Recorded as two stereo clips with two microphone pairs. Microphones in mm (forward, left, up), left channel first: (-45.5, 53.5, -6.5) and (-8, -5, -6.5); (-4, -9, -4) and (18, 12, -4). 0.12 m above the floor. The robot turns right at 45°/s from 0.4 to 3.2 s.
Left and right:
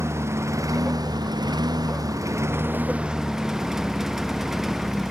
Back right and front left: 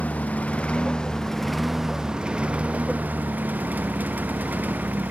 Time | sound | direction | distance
0.0 | a lawn mower | 105° right | ?